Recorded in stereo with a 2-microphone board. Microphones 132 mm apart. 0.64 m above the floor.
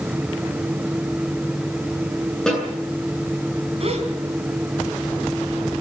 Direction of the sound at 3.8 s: 50° right (ahead or behind).